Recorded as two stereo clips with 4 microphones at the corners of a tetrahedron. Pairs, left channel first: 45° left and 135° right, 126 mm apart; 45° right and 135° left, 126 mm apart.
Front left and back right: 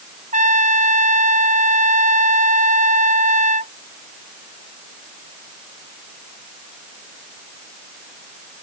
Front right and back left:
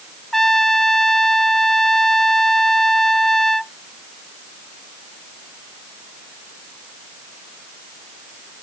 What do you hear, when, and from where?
0.3 s a trumpet: 135° right